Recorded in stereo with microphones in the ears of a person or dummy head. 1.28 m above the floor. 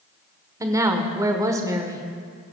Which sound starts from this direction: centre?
A woman speaking, at 0.6 s.